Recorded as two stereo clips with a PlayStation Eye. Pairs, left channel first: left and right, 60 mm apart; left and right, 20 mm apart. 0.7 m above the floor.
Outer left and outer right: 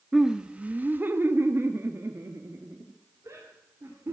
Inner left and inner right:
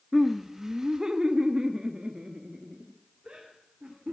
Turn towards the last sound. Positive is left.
turn(degrees=-50)  # may be behind; listen again after turning